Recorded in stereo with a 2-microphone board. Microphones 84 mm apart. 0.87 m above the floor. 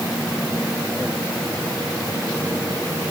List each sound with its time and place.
Only background noise.